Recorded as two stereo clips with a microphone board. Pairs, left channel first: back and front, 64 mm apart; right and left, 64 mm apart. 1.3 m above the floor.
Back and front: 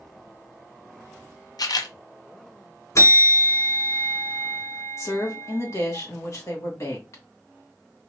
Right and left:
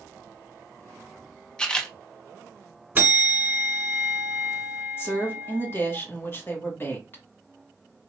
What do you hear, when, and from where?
1.6 s a camera shutter: 170° right, 0.6 m
3.0 s a bell: 150° left, 1.6 m
5.0 s a woman speaking: 145° right, 1.5 m